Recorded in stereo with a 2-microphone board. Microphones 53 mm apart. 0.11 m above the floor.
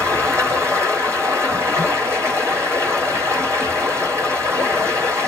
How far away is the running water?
About 1.5 m.